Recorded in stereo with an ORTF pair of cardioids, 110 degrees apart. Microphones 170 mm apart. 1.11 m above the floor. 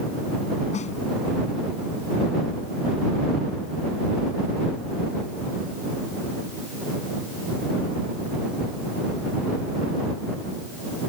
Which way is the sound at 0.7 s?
45° left.